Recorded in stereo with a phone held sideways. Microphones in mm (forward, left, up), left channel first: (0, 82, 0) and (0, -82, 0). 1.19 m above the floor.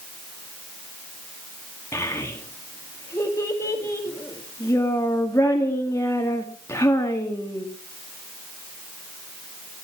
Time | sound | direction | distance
1.9 | a child speaking | 15° left (ahead or behind) | 1.9 m